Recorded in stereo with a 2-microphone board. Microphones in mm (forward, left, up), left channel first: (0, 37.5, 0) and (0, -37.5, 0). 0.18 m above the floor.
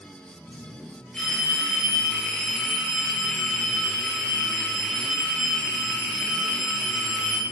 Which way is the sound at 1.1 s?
10° left (ahead or behind).